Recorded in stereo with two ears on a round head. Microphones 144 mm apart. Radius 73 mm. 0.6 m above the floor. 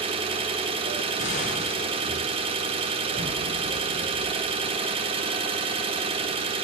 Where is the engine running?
35° right (ahead or behind), 0.7 m.